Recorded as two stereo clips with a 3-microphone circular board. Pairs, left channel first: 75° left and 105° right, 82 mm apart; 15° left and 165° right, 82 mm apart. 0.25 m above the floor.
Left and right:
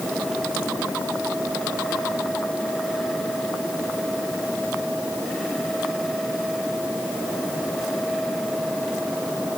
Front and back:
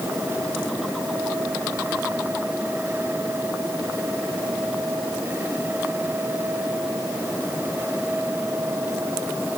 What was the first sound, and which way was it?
Only background noise.